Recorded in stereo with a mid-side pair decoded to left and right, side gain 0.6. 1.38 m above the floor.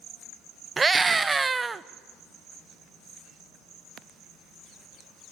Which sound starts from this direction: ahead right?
A scream, at 0.8 s.